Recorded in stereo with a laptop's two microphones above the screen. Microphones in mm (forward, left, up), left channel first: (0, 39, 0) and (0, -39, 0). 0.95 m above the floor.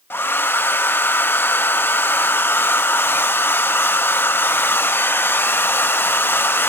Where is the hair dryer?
25° left (ahead or behind).